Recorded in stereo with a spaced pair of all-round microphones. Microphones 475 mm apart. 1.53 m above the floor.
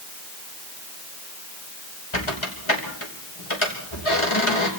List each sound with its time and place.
2.1 s a squeak: 80° left, 5 m